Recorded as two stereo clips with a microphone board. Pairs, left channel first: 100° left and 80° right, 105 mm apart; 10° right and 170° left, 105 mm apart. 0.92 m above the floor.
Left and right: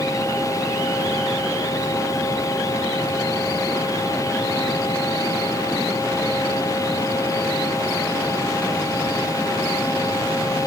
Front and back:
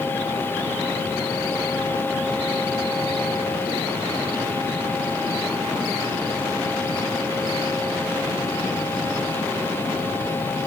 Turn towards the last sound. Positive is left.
No sound to turn to.